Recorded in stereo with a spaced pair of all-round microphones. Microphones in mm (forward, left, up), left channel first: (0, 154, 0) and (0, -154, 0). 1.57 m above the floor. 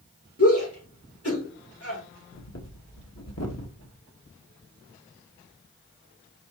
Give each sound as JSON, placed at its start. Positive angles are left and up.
{"t": 0.4, "sound": "a shout", "side_deg": 50, "distance_m": 4.5}
{"t": 2.3, "sound": "breathing", "side_deg": 55, "distance_m": 1.3}